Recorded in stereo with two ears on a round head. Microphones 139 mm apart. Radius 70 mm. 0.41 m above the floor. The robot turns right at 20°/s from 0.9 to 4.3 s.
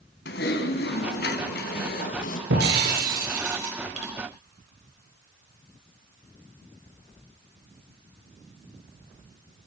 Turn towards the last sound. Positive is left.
turn(degrees=-40)